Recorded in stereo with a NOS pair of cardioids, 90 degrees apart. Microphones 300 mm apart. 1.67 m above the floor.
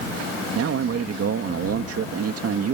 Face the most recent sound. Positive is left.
turn(degrees=-55)